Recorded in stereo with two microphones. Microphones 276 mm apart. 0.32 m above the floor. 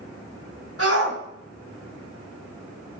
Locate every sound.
0.8 s a shout: 55° right (ahead or behind), 3.5 m